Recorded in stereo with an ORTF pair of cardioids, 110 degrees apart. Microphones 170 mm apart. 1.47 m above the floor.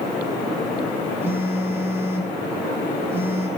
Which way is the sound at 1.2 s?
15° right.